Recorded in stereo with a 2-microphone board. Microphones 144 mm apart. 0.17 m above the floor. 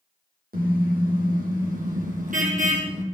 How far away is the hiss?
No hiss in this recording.